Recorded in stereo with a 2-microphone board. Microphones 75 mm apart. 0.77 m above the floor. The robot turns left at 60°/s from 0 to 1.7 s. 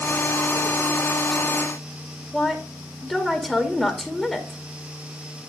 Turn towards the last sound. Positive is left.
turn(degrees=0)  # may be behind; listen again after turning